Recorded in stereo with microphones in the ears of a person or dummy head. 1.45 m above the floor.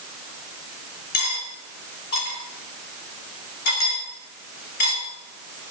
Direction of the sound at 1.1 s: 55° left (ahead or behind).